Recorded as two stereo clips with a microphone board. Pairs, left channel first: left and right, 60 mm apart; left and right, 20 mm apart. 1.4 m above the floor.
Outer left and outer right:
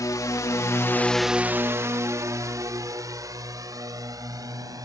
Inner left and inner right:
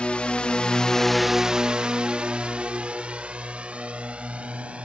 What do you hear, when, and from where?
0.0 s a drone: 75° left (ahead or behind); by 4.8 s 75° right (ahead or behind)